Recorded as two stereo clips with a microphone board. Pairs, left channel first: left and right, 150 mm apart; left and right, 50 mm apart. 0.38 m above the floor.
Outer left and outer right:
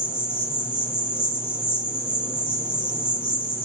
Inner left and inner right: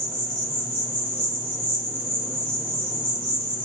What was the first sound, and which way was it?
An insect, 15° left (ahead or behind).